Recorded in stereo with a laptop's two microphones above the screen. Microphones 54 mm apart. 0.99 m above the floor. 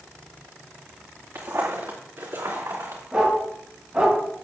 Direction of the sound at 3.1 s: 20° right (ahead or behind).